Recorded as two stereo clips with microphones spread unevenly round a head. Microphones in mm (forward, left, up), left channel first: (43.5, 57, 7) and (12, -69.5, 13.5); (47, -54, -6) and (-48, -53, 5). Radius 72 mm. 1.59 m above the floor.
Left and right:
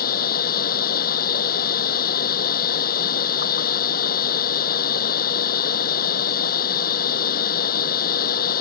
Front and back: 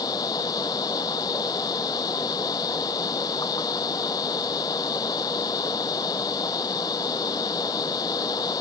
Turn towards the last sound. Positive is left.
turn(degrees=70)